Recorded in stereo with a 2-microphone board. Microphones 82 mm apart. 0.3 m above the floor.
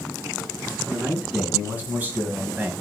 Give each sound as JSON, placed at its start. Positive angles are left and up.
{"t": 0.9, "sound": "a man speaking", "side_deg": -20, "distance_m": 3.5}